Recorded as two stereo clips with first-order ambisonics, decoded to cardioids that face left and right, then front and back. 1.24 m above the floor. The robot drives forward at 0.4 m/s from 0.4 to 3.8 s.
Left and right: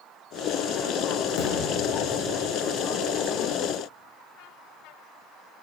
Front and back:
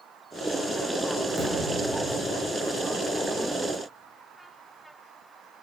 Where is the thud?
85° left, 4.5 m; by 2.0 s 90° left, 4.5 m.